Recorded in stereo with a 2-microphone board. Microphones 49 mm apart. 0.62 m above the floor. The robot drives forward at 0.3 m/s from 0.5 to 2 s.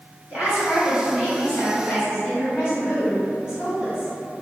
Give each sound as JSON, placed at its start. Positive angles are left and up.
{"t": 0.3, "sound": "a woman speaking", "side_deg": -35, "distance_m": 1.4}